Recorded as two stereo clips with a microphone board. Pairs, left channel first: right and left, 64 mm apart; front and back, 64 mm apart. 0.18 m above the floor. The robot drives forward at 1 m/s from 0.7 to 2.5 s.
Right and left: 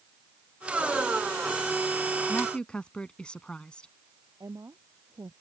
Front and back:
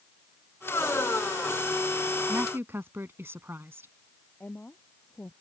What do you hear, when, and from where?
2.3 s a woman speaking: 150° right; by 3.9 s 155° right
4.4 s a woman speaking: 65° left